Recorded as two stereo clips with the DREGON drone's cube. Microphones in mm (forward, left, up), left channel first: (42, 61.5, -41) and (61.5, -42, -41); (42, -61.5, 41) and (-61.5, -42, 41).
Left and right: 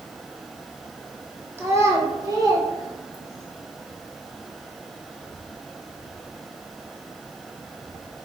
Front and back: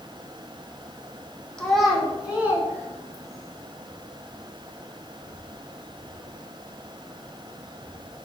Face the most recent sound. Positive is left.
turn(degrees=-130)